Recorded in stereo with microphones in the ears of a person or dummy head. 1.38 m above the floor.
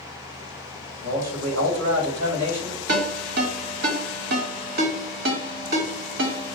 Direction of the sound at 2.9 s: 60° right (ahead or behind).